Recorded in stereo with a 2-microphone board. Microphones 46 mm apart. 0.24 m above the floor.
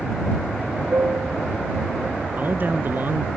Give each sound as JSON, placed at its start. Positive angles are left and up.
{"t": 0.9, "sound": "a piano", "side_deg": -65}
{"t": 2.4, "sound": "a man speaking", "side_deg": -45}